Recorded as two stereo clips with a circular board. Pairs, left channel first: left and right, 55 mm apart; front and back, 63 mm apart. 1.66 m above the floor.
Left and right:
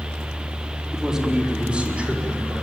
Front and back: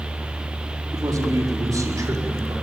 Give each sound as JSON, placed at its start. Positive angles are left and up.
{"t": 0.9, "sound": "a man speaking", "azimuth_deg": -170, "distance_m": 4.5}